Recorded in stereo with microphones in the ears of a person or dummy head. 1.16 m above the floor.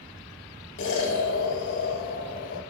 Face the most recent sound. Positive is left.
turn(degrees=75)  # may be behind; listen again after turning